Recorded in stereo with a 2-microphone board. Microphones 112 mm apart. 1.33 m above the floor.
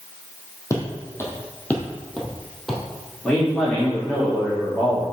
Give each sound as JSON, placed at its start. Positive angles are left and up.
{"t": 0.7, "sound": "footsteps", "side_deg": 25, "distance_m": 2.5}
{"t": 3.2, "sound": "a man speaking", "side_deg": 20, "distance_m": 3.5}